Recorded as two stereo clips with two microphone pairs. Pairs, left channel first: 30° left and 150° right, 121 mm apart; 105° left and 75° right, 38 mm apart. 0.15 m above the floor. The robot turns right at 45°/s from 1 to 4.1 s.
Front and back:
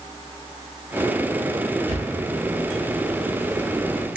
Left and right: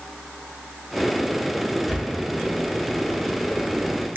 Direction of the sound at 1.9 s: 170° right.